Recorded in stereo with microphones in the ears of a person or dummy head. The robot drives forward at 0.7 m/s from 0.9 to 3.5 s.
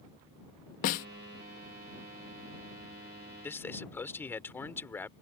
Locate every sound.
0.8 s a snare drum: 50° left (ahead or behind)
3.4 s a man speaking: 10° left (ahead or behind)